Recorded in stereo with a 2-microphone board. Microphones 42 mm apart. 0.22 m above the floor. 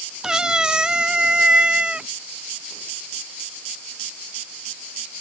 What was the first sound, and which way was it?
A cat meowing, 20° right (ahead or behind).